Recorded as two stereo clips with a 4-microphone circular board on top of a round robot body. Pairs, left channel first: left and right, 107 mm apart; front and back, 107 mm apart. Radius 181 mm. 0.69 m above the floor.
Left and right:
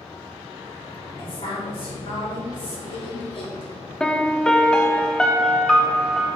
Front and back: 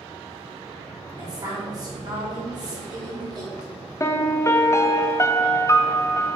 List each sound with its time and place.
1.2 s a woman speaking: 130° left, 3.5 m
4.0 s a piano: 15° left, 1.0 m